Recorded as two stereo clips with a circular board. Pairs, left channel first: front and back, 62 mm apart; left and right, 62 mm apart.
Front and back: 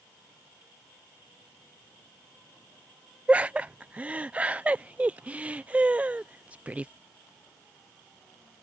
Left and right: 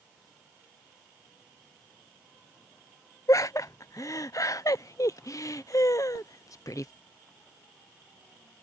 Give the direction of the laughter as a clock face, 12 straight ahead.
8 o'clock.